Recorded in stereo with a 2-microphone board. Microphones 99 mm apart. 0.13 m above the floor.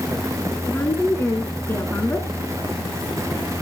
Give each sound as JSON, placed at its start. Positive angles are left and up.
{"t": 0.7, "sound": "a woman speaking", "side_deg": 25, "distance_m": 1.6}